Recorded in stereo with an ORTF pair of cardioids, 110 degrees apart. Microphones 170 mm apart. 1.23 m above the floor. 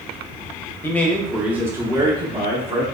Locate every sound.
0.8 s a man speaking: 15° left, 0.9 m; by 2.8 s 40° right, 1.4 m